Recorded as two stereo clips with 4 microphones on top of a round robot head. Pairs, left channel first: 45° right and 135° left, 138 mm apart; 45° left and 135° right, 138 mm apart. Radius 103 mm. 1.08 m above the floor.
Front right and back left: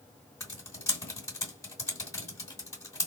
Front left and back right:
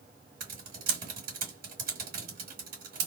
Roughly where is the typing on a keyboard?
Behind right.